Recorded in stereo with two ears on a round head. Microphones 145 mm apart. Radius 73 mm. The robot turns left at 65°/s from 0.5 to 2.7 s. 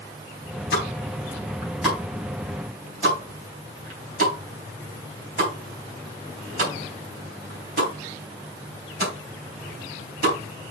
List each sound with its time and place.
0.7 s a pop: 65° left (ahead or behind), 4 m; by 10.7 s 55° right (ahead or behind), 4 m